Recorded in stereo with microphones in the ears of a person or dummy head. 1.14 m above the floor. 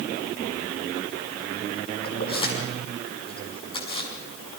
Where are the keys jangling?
30° left (ahead or behind), 5.5 m.